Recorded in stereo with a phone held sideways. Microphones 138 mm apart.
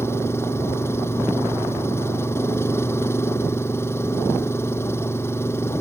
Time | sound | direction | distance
0.0 | an engine running | 20° left (ahead or behind) | ?